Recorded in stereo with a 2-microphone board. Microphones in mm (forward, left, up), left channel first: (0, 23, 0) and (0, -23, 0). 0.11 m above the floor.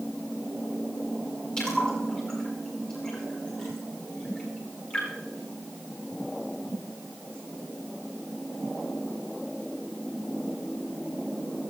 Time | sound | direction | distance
1.6 | a splash | 20° left (ahead or behind) | 8.5 m